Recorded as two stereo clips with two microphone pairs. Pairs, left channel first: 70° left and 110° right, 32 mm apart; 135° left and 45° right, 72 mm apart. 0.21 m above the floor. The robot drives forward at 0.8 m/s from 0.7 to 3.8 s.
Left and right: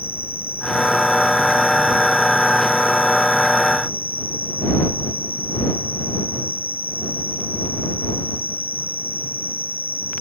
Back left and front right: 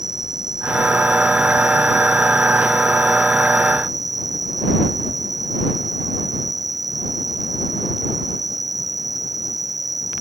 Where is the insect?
65° right; by 10.2 s 75° right.